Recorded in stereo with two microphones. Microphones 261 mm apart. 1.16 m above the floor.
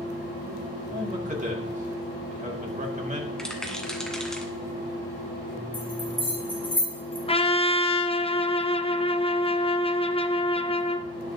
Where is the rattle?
Centre (ahead or behind), 1.7 m.